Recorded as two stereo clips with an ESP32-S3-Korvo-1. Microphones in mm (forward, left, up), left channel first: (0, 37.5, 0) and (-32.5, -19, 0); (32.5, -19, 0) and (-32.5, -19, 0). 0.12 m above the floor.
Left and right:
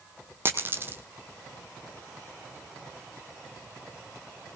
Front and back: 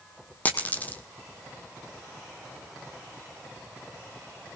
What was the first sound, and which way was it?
A dropped coin, 65° right.